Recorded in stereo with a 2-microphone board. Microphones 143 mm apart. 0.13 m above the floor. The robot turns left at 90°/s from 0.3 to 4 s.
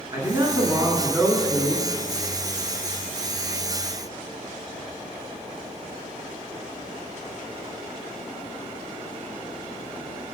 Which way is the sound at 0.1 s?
25° right (ahead or behind).